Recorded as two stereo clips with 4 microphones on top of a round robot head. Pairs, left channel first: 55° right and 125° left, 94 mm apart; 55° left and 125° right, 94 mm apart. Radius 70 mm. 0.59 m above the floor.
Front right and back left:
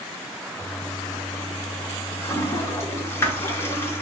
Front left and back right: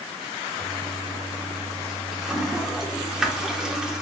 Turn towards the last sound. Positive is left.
turn(degrees=-50)